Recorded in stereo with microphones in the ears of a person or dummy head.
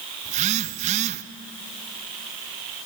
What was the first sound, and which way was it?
A phone buzzing, 35° right (ahead or behind).